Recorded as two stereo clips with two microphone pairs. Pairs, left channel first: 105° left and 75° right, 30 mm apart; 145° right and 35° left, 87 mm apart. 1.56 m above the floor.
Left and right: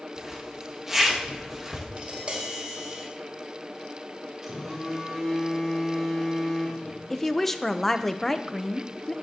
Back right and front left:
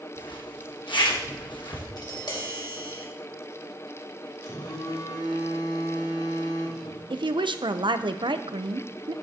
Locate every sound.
0.2 s a zipper: 150° right, 1.9 m
2.0 s tapping: 120° right, 2 m
4.4 s a phone buzzing: 160° right, 3.5 m
7.1 s a woman speaking: 25° left, 0.7 m